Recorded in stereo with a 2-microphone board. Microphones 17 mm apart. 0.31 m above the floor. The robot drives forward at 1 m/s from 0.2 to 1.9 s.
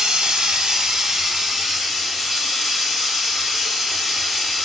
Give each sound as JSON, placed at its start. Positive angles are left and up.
{"t": 0.0, "sound": "running water", "side_deg": -65, "distance_m": 0.9}